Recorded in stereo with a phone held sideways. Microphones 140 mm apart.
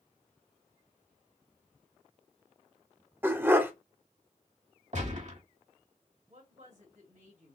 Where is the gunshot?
55° right (ahead or behind), 1.4 m.